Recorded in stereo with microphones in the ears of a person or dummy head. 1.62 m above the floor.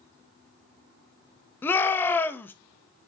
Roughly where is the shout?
Centre.